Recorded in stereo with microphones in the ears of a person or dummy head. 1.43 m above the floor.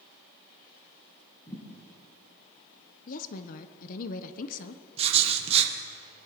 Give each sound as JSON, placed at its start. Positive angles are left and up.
{"t": 1.5, "sound": "a thud", "side_deg": 20, "distance_m": 4.5}
{"t": 3.1, "sound": "a woman speaking", "side_deg": 45, "distance_m": 0.7}
{"t": 5.0, "sound": "writing", "side_deg": -35, "distance_m": 1.2}